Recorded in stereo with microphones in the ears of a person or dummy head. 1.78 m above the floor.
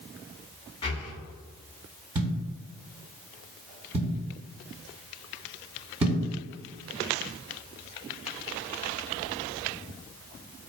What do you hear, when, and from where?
0.8 s breathing: 35° left (ahead or behind), 0.7 m
2.1 s a thud: 20° right (ahead or behind), 1.6 m